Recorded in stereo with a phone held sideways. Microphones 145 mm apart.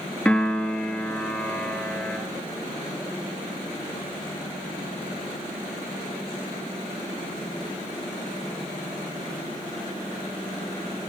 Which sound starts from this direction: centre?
A piano, at 0.2 s.